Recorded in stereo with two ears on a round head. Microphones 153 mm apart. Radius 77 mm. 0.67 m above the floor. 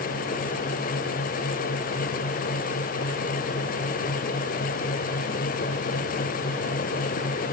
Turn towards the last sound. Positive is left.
No sound to turn to.